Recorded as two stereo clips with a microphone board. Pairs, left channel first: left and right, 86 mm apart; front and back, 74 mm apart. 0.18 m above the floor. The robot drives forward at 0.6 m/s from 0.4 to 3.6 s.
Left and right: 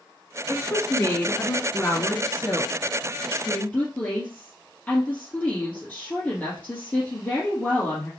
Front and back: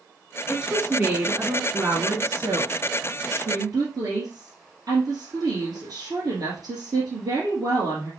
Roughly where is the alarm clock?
I don't hear an alarm clock.